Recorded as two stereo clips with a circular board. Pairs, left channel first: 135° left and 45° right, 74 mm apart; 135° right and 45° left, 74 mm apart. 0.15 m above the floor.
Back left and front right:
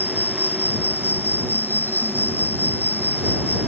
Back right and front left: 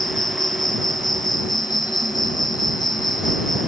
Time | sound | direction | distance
0.0 | an insect | 160° right | ?